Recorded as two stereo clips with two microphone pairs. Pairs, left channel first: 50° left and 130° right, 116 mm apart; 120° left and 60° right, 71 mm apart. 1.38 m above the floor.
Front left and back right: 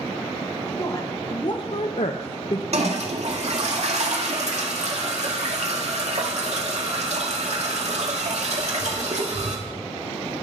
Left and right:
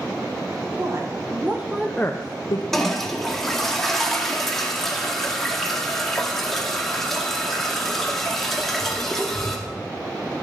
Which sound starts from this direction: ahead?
A woman speaking, at 0.8 s.